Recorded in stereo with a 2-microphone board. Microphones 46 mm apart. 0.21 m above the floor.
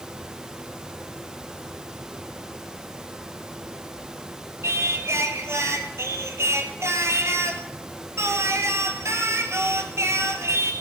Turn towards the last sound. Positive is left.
turn(degrees=-80)